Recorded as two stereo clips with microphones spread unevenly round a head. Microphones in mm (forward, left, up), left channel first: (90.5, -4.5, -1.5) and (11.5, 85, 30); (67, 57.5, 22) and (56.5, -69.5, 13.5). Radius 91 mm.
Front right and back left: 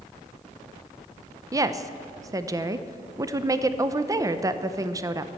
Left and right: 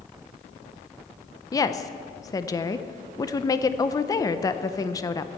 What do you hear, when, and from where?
1.5 s a woman speaking: 70° left, 0.6 m